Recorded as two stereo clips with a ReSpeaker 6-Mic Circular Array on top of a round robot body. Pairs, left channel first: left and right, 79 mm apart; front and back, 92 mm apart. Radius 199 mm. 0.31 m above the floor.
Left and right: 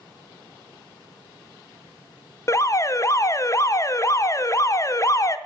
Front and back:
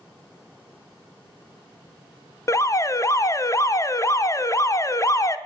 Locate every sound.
2.5 s an alarm: 50° left, 0.8 m